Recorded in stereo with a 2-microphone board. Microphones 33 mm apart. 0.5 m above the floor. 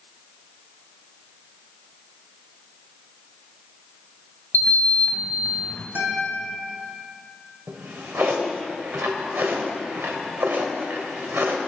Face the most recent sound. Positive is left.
turn(degrees=-70)  # may be behind; listen again after turning